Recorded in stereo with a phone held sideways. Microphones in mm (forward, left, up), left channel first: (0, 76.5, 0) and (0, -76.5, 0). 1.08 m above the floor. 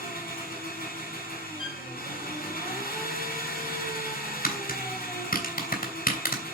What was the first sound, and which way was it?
An engine running, 75° left (ahead or behind).